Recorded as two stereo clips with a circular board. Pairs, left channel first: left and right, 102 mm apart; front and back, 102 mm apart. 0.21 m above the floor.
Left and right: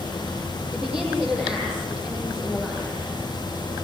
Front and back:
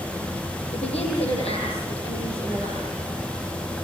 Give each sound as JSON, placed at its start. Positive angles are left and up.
{"t": 0.7, "sound": "a woman speaking", "azimuth_deg": -10, "distance_m": 9.0}